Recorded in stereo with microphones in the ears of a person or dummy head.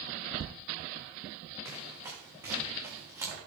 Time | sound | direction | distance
1.6 | running footsteps | 15° right (ahead or behind) | 5.5 m